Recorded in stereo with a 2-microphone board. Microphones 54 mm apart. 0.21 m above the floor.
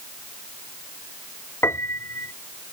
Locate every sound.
1.6 s a piano: 55° left (ahead or behind)